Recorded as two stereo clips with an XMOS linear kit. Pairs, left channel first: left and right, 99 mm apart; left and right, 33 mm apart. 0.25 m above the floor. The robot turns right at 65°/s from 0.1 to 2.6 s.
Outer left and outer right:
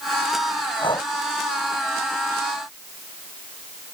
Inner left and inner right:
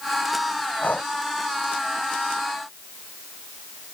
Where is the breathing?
60° left (ahead or behind); by 1.1 s 40° left (ahead or behind).